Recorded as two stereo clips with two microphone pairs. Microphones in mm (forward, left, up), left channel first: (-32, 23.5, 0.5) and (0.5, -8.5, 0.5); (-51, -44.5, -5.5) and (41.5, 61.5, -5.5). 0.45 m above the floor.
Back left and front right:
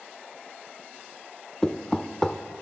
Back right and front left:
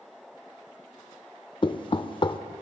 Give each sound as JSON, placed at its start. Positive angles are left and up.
{"t": 1.6, "sound": "knocking", "azimuth_deg": -160, "distance_m": 0.5}